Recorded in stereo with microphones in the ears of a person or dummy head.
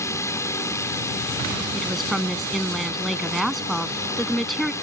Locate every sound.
0.0 s a drone: 15° left (ahead or behind)
1.7 s a woman speaking: centre (ahead or behind)